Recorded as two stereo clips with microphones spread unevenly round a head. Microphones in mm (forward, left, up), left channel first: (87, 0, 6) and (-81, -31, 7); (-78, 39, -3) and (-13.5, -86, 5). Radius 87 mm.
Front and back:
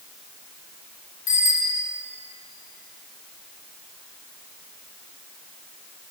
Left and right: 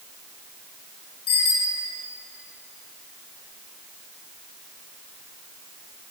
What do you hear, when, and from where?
1.3 s a bicycle bell: 55° left, 4.5 m